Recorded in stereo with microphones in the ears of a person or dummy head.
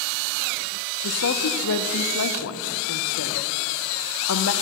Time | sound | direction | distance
1.0 | a woman speaking | 70° left (ahead or behind) | 0.7 m